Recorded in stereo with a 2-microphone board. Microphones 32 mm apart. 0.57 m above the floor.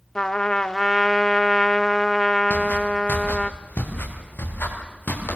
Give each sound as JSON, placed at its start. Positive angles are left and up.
{"t": 0.1, "sound": "a trumpet", "side_deg": 25, "distance_m": 0.7}
{"t": 2.5, "sound": "footsteps", "side_deg": 55, "distance_m": 6.0}